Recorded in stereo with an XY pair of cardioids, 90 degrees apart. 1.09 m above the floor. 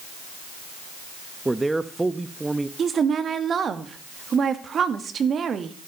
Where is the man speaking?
15° right, 1.0 m.